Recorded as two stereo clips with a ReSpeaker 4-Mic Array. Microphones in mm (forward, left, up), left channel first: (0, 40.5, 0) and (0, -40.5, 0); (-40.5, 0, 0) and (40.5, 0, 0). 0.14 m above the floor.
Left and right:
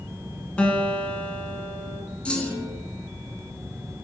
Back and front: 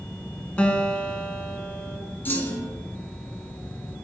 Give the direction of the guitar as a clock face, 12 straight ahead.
8 o'clock.